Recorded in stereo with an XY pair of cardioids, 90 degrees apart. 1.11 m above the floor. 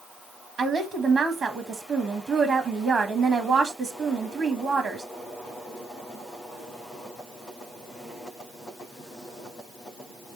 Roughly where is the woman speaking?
Ahead right.